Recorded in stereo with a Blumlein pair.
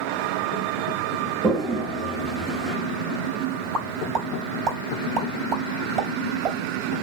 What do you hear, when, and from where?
1.4 s a toilet flushing: 10° right, 2 m
3.7 s a pop: 30° right, 3.5 m